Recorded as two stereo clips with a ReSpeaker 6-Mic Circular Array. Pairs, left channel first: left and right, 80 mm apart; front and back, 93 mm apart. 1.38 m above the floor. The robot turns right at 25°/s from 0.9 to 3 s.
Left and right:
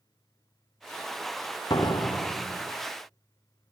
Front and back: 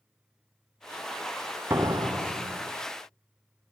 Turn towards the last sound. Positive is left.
turn(degrees=150)